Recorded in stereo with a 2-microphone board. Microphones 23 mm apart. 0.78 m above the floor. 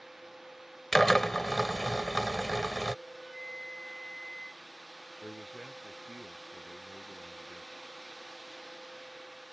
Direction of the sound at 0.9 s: 10° left (ahead or behind).